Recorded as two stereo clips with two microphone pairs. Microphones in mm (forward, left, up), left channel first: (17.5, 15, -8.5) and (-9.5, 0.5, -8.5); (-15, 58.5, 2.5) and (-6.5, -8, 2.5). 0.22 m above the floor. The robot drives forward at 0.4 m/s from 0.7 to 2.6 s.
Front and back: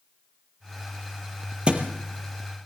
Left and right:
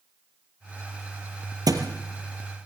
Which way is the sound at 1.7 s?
95° right.